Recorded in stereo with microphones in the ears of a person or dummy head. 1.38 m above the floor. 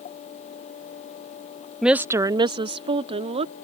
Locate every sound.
1.8 s a woman speaking: centre (ahead or behind); by 3.5 s 35° right (ahead or behind)